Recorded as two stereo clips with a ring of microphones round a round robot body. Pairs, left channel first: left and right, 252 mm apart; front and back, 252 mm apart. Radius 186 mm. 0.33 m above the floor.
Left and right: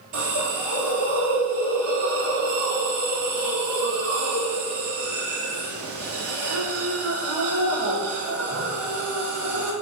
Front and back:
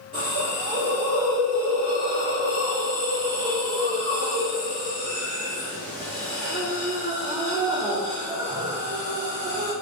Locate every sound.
0.1 s a hiss: 85° right, 1.6 m